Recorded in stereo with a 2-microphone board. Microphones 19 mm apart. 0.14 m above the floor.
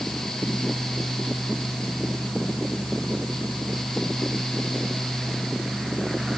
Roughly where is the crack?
I don't hear a crack.